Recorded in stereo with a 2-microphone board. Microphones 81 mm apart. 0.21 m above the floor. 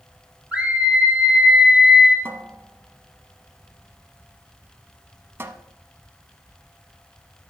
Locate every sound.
0.5 s a scream: 15° right (ahead or behind), 1.7 m
2.2 s a cupboard door: 30° right (ahead or behind), 0.6 m